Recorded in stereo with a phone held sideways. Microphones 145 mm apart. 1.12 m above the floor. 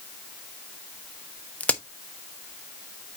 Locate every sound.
1.6 s a crack: 10° left (ahead or behind), 0.9 m